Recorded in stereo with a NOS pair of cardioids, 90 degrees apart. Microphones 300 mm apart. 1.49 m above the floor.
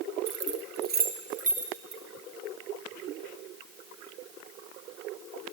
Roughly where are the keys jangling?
Ahead right.